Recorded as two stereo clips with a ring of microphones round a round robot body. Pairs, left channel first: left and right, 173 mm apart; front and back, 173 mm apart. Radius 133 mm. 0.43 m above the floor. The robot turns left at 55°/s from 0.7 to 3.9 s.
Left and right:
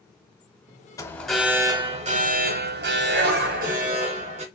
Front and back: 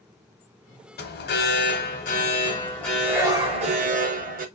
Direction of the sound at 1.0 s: 20° left.